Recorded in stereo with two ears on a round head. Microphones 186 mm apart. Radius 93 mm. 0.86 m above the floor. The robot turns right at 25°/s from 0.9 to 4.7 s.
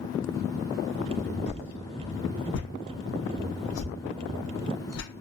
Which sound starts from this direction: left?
A whoosh, at 1.5 s.